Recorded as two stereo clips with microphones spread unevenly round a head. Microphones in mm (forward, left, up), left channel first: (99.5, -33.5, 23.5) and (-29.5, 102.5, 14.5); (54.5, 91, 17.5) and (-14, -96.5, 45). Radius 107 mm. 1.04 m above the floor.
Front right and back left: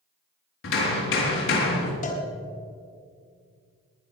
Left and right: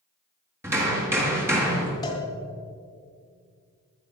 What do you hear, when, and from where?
0.6 s hammering: 35° right, 4 m
2.0 s a cowbell: 5° right, 3 m